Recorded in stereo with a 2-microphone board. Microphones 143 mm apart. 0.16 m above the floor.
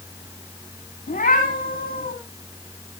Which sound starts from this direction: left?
A cat meowing, at 1.1 s.